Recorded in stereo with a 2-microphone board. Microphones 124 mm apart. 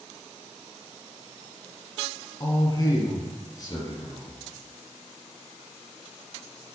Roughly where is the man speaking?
Left.